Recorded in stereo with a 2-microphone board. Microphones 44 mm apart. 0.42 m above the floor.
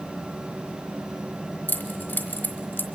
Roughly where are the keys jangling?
Left.